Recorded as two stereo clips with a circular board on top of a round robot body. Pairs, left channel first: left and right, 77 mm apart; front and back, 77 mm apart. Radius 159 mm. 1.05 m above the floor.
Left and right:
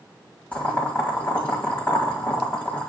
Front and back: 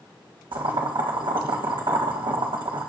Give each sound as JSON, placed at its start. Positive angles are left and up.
{"t": 0.5, "sound": "boiling", "azimuth_deg": 160, "distance_m": 1.7}